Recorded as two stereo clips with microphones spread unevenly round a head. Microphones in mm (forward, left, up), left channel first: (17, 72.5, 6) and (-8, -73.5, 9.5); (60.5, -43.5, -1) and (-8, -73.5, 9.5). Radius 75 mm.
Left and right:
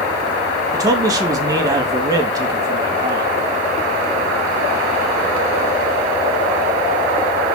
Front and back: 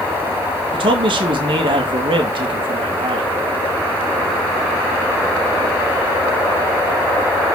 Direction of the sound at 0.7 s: 170° right.